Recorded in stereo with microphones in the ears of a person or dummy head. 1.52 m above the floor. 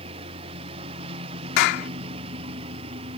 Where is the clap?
65° left (ahead or behind).